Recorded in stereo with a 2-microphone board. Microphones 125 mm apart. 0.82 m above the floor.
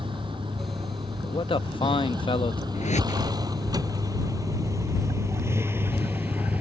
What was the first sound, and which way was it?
A vehicle, 40° right (ahead or behind).